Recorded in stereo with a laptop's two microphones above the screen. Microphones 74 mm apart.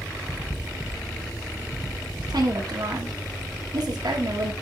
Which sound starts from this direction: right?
A woman speaking, at 2.3 s.